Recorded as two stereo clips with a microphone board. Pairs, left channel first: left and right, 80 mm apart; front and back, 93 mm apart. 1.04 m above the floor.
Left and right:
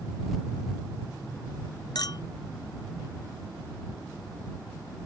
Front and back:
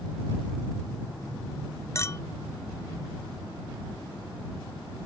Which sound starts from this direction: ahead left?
A clink, at 1.9 s.